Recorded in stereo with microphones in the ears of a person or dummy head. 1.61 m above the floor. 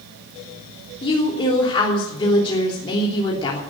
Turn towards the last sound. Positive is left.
turn(degrees=30)  # may be behind; listen again after turning